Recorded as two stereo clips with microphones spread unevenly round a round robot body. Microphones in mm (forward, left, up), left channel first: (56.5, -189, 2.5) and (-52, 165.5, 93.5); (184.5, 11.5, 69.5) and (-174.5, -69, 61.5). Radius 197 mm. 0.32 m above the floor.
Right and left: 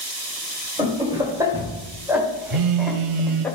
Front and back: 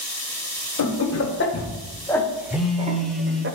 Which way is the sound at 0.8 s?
15° left.